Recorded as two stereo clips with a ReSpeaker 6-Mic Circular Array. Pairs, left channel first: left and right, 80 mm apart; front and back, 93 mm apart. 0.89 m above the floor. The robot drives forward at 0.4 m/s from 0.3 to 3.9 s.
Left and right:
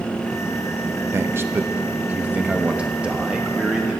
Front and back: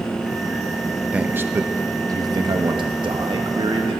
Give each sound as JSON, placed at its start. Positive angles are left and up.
{"t": 1.1, "sound": "a man speaking", "azimuth_deg": -110, "distance_m": 0.6}